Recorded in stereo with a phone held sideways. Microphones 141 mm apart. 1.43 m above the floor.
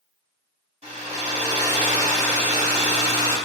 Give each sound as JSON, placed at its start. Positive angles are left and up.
{"t": 0.8, "sound": "a hair dryer", "side_deg": -50, "distance_m": 1.6}